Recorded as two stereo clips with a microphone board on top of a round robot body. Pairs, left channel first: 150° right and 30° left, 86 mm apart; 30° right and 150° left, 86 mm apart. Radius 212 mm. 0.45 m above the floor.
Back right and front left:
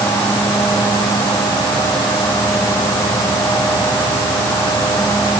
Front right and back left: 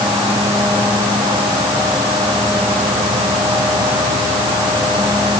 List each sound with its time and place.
Only background noise.